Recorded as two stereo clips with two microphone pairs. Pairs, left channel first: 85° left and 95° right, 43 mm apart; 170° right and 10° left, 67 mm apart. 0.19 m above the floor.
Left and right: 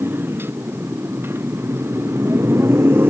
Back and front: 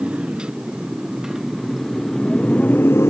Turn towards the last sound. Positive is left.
turn(degrees=-130)